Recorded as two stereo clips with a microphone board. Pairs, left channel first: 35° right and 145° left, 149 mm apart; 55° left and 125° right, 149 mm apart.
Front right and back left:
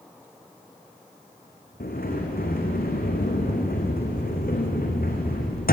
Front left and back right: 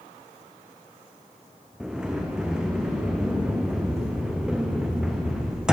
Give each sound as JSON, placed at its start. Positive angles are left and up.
{"t": 1.8, "sound": "a sliding door", "azimuth_deg": -40, "distance_m": 3.5}